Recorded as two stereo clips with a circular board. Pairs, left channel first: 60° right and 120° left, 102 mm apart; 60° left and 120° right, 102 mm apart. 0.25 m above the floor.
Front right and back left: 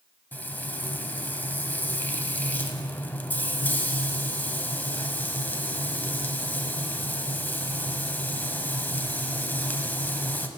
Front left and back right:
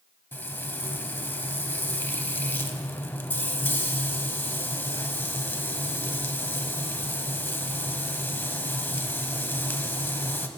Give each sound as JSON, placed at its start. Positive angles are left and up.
{"t": 0.3, "sound": "frying", "azimuth_deg": 0, "distance_m": 0.7}